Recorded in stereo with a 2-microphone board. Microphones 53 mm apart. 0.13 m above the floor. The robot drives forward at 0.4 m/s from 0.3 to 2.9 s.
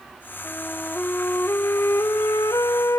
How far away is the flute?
About 1.0 m.